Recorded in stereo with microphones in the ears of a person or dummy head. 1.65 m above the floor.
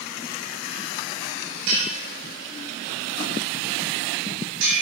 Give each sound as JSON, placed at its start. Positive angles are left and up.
{"t": 1.7, "sound": "a bell", "side_deg": -70, "distance_m": 5.5}